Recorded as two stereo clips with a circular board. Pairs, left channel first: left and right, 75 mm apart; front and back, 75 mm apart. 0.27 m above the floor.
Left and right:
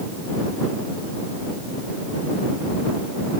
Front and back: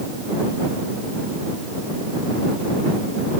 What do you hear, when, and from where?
Only background noise.